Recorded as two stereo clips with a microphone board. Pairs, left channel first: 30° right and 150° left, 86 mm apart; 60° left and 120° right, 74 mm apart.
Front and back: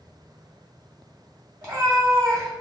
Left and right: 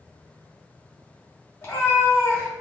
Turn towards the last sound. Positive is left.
turn(degrees=115)